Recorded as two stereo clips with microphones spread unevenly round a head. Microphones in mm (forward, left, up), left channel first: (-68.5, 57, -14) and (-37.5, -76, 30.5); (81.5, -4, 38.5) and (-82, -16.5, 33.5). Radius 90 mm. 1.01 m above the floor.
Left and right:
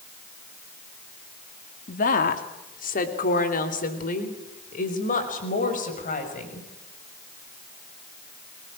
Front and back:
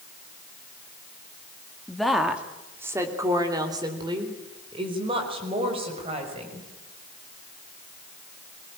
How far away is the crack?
I don't hear a crack.